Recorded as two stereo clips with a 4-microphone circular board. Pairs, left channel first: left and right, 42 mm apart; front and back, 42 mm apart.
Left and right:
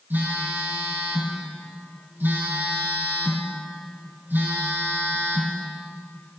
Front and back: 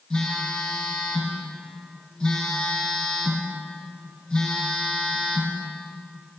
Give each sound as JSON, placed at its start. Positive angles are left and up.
{"t": 0.1, "sound": "a phone buzzing", "azimuth_deg": -75, "distance_m": 4.0}